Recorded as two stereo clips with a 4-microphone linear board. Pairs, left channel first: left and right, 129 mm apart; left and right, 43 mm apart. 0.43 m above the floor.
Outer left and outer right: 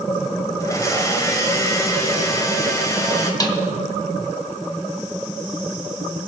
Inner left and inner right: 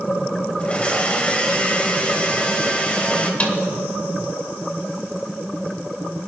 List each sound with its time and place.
0.6 s a blender: 25° left (ahead or behind), 2.0 m
3.4 s a snare drum: 30° left (ahead or behind), 1.8 m